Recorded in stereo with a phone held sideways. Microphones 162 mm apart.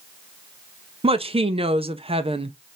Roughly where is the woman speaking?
Right.